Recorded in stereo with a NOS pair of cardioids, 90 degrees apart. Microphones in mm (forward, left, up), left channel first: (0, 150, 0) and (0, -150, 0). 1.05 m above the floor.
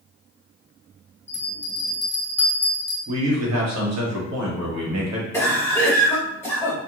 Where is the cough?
10° left, 1.1 m.